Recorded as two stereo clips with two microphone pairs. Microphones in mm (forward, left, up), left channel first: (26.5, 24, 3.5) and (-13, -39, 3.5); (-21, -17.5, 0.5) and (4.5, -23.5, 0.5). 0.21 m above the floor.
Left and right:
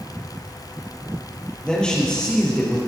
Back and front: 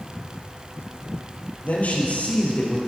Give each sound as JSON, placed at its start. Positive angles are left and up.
{"t": 1.6, "sound": "a man speaking", "azimuth_deg": 135, "distance_m": 5.0}